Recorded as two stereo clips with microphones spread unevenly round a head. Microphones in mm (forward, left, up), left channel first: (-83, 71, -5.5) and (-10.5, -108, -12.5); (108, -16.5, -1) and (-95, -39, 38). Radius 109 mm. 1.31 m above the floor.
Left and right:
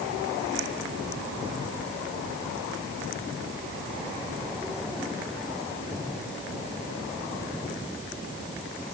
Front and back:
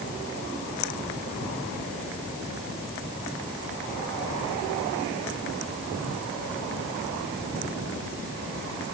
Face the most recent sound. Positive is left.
No sound to turn to.